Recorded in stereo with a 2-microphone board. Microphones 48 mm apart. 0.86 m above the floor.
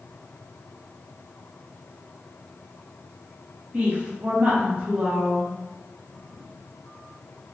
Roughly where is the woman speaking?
Right.